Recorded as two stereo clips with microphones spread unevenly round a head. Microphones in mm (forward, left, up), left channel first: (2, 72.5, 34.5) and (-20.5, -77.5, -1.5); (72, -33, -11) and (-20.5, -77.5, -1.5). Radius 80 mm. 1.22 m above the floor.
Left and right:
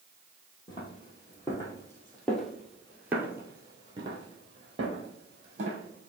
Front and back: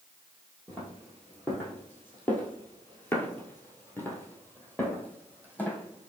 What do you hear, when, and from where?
0.7 s footsteps: 110° left, 1.6 m; by 6.1 s 50° right, 2 m